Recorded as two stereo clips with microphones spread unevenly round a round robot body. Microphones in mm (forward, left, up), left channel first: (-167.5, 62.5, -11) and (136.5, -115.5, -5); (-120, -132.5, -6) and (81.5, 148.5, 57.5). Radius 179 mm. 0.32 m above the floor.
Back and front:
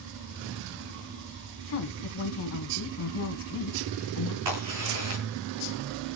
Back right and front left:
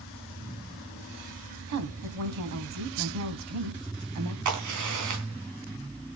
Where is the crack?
10° left, 3.5 m.